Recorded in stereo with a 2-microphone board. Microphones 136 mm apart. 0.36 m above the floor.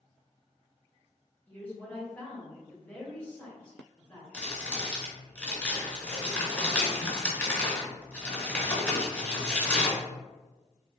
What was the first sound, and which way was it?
A woman speaking, 15° left (ahead or behind).